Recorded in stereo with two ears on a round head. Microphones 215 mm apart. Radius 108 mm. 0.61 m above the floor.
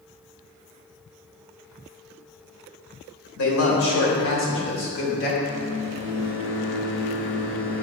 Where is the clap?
I don't hear a clap.